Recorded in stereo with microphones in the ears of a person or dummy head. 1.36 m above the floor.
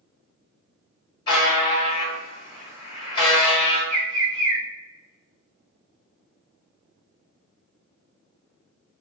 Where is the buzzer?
25° left (ahead or behind), 1.1 m.